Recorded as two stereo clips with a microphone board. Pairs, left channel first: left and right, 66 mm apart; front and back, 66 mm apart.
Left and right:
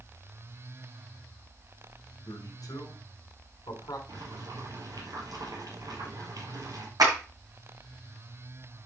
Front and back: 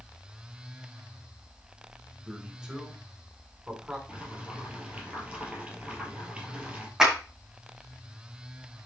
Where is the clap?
100° right, 5.5 m.